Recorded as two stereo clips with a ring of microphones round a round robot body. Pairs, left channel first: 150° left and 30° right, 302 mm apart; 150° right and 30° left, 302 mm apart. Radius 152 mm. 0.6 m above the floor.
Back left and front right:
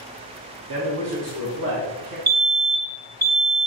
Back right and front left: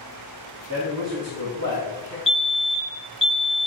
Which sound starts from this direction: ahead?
A man speaking, at 0.7 s.